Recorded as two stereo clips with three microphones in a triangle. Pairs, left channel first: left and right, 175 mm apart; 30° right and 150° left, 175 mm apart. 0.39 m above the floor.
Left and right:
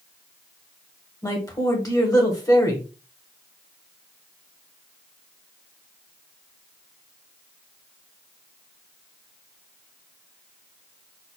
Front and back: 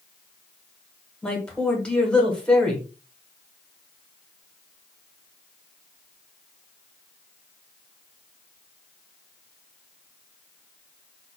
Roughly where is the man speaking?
Ahead left.